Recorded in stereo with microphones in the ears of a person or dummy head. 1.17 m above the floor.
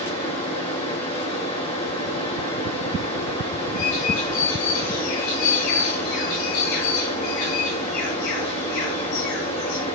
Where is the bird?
70° left (ahead or behind), 9.5 m.